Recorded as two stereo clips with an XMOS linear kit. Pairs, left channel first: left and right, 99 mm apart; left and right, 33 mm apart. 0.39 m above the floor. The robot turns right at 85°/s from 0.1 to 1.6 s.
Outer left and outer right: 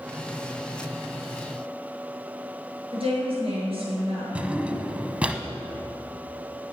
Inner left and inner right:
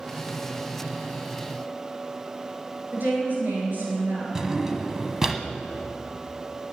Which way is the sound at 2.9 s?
65° right (ahead or behind).